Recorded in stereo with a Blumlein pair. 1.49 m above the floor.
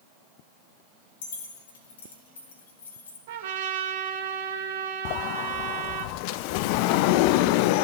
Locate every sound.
1.2 s keys jangling: 60° left, 2.5 m; by 3.2 s 70° left, 3.5 m
3.3 s a trumpet: 55° right, 1.7 m
5.0 s a sliding door: 45° left, 0.6 m